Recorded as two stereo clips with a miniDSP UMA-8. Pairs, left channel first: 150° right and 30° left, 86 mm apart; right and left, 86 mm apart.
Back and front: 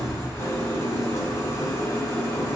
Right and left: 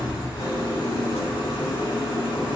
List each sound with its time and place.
0.0 s an engine running: 95° right, 1.9 m